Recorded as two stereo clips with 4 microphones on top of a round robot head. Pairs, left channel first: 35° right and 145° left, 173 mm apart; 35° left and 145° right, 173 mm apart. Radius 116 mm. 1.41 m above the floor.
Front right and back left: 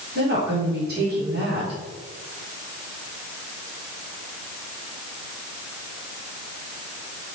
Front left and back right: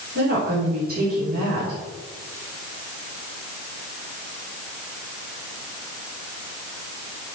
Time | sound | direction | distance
0.1 | a woman speaking | straight behind | 4.5 m